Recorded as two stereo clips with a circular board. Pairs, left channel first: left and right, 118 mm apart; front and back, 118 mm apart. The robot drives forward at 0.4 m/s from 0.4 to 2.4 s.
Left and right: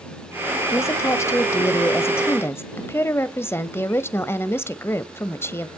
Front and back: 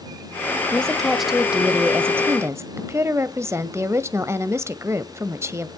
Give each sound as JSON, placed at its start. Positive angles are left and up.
{"t": 0.7, "sound": "a woman speaking", "azimuth_deg": 70, "distance_m": 1.2}